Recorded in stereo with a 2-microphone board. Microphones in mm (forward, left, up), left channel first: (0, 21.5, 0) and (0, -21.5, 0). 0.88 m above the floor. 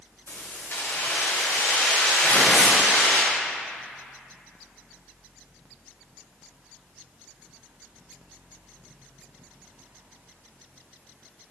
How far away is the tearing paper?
About 1.6 m.